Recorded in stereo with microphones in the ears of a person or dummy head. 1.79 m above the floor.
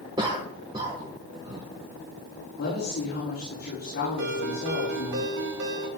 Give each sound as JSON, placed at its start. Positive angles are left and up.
{"t": 0.2, "sound": "a cough", "side_deg": -25, "distance_m": 1.5}
{"t": 2.6, "sound": "a woman speaking", "side_deg": 55, "distance_m": 6.5}
{"t": 4.2, "sound": "a ringtone", "side_deg": -60, "distance_m": 2.0}